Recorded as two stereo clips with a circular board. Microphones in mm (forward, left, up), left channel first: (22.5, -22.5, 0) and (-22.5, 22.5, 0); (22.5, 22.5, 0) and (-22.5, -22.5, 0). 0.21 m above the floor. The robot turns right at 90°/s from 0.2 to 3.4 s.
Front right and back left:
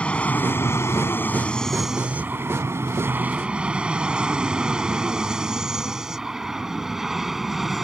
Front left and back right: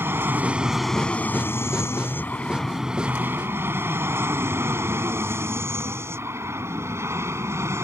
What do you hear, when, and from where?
0.0 s an aircraft: 105° right; by 7.8 s 140° right